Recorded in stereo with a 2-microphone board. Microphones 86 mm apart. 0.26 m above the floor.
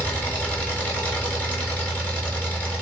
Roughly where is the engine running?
Centre.